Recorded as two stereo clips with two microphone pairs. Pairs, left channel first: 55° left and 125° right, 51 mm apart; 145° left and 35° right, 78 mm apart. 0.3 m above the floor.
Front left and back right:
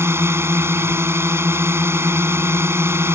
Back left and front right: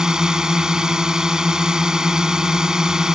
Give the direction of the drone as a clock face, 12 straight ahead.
4 o'clock.